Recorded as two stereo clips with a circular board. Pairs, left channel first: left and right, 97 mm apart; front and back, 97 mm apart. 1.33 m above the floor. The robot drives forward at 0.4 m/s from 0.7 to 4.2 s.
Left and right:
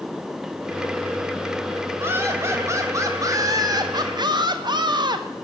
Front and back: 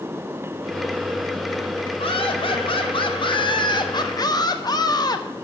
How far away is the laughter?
About 1.7 m.